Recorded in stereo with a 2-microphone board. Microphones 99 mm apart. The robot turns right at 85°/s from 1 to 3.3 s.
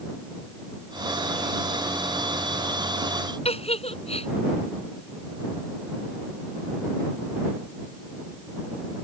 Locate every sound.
3.5 s a giggle: 75° left (ahead or behind)